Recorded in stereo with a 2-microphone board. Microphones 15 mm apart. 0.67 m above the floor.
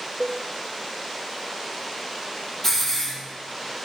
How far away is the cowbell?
About 0.7 m.